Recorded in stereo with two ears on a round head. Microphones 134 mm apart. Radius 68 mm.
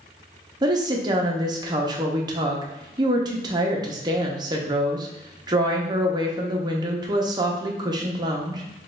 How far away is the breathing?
I don't hear breathing.